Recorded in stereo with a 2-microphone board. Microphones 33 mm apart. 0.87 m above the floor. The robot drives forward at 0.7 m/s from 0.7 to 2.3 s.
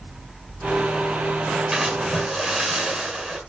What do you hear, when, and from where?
1.7 s a splash: 15° right (ahead or behind), 6 m